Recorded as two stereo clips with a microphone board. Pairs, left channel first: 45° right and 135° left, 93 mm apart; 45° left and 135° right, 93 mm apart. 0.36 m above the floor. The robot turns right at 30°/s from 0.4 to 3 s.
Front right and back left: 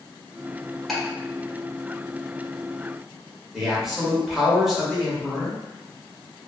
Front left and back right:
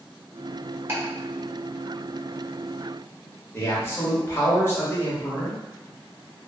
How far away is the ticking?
About 1.2 m.